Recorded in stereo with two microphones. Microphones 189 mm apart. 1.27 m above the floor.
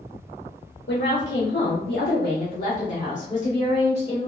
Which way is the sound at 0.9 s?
70° left (ahead or behind).